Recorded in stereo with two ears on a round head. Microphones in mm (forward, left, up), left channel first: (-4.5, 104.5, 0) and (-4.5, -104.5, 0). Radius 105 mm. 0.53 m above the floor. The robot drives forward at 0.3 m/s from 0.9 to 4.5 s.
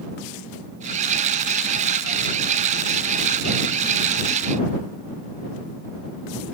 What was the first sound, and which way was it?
Only background noise.